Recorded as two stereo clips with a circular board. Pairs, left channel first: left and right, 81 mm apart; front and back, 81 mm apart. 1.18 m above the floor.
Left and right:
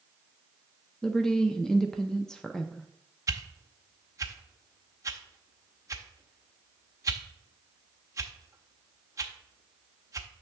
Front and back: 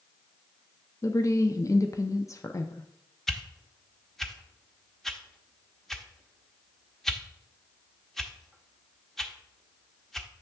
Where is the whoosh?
85° right, 0.6 m.